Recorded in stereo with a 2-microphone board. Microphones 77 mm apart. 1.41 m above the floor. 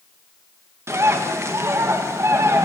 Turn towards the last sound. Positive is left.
turn(degrees=-40)  # may be behind; listen again after turning